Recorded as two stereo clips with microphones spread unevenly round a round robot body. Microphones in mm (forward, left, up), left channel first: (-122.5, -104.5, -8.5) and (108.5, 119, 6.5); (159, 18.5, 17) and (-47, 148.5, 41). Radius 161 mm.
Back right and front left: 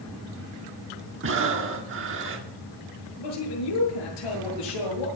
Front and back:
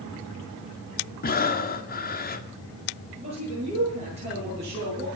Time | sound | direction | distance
1.2 | breathing | straight ahead | 1.7 m
3.2 | a man speaking | 140° right | 9.5 m